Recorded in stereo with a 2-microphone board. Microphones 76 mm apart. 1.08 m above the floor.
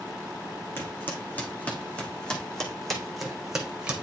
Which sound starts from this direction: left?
Footsteps, at 0.8 s.